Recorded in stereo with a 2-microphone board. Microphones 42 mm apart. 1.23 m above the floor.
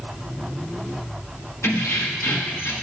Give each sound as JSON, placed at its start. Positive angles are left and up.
{"t": 1.6, "sound": "keys jangling", "side_deg": 80, "distance_m": 1.3}